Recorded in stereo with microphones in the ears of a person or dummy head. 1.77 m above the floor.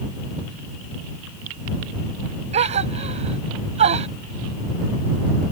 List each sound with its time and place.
2.5 s a gasp: 35° right (ahead or behind)